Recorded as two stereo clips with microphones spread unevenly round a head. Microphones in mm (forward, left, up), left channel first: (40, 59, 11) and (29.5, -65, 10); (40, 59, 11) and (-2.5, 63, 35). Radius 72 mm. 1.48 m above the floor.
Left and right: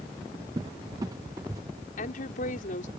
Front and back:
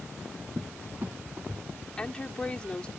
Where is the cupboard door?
160° right.